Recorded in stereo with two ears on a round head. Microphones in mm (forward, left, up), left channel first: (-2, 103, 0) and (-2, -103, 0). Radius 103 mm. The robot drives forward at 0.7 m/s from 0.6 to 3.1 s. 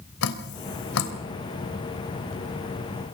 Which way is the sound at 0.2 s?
70° left (ahead or behind).